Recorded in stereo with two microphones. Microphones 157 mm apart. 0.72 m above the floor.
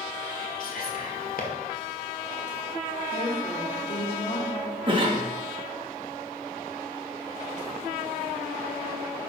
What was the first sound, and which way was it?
Whispering, 65° left (ahead or behind).